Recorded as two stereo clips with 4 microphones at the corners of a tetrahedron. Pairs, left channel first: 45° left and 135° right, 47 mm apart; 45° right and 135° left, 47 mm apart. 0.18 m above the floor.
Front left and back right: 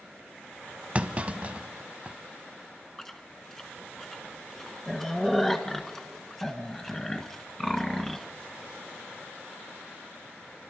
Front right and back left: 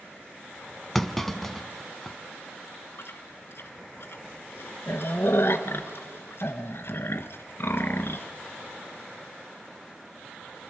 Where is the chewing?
35° right, 1.3 m.